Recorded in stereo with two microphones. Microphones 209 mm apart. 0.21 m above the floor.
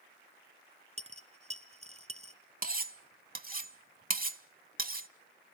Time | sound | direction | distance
1.0 | a dropped coin | 30° right (ahead or behind) | 1.3 m
2.6 | cutlery clinking | 45° right (ahead or behind) | 0.8 m